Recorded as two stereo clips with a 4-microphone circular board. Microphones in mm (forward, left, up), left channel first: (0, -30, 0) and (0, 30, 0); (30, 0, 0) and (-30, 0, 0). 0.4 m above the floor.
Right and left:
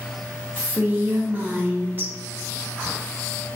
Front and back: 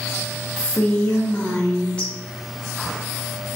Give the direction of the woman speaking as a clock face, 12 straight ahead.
10 o'clock.